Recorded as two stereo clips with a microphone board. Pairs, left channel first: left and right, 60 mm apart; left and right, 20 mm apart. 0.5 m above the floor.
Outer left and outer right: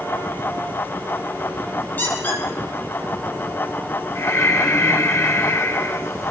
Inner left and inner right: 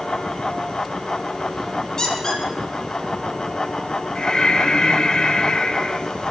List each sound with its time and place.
2.0 s a squeak: 30° left (ahead or behind), 4 m
4.2 s breathing: 60° left (ahead or behind), 1.5 m